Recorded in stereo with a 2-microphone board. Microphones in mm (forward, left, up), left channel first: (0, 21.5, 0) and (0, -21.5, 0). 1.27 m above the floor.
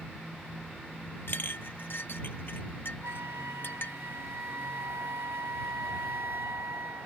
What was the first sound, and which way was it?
A clink, 55° left (ahead or behind).